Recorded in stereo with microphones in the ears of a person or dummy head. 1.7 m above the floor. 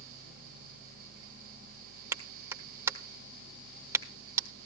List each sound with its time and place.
2.1 s a clap: 15° right (ahead or behind), 1.1 m